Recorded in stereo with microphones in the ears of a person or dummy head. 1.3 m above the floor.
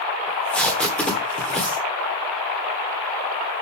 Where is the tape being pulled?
5° left (ahead or behind), 1.2 m.